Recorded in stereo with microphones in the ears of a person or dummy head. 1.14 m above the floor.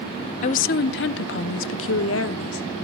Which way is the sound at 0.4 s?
40° left (ahead or behind).